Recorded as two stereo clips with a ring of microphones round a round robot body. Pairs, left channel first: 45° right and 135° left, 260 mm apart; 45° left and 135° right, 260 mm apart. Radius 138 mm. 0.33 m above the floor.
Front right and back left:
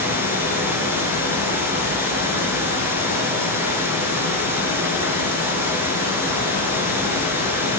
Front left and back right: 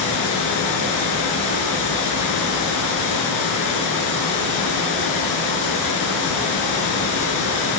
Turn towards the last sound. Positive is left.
turn(degrees=55)